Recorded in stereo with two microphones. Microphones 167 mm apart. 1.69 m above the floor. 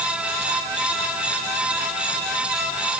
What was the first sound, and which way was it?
Only background noise.